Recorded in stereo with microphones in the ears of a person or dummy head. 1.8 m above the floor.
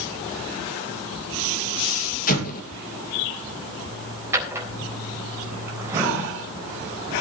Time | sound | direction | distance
2.3 | an explosion | 45° left (ahead or behind) | 2.5 m
4.3 | a drawer | 15° right (ahead or behind) | 3.5 m